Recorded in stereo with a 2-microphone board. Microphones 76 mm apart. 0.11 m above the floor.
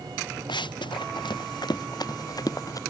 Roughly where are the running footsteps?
Left.